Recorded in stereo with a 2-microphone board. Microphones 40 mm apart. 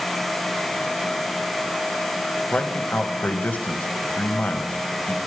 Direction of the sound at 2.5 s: 45° left (ahead or behind).